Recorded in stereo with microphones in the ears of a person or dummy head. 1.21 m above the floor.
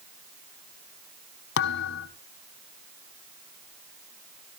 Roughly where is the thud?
Left.